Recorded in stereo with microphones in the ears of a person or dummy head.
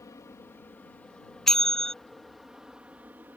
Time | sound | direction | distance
0.0 | an aircraft | 15° left (ahead or behind) | ?
1.5 | a bell | 5° left (ahead or behind) | ?